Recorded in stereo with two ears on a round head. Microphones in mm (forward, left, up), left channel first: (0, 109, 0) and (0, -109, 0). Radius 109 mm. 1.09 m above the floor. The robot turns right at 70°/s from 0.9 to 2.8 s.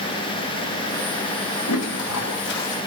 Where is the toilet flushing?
75° left, 1.1 m; by 2.8 s 150° left, 1.1 m.